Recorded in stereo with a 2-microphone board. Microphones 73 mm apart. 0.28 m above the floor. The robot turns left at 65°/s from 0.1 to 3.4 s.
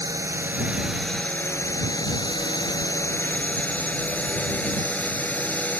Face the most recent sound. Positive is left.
turn(degrees=25)